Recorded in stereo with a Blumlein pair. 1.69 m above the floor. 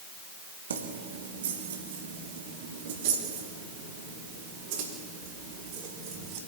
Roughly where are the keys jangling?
Ahead right.